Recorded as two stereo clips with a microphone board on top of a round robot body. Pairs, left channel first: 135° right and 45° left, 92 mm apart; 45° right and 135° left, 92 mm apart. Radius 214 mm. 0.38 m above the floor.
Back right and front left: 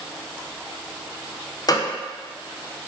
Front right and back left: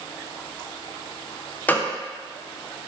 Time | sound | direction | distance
1.7 | a gunshot | 110° right | 0.5 m